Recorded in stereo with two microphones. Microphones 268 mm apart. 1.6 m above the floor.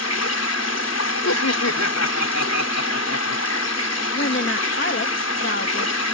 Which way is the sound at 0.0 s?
70° left (ahead or behind).